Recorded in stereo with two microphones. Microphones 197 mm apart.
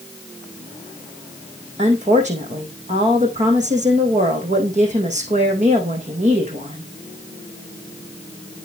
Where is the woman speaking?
40° right (ahead or behind), 4.5 m.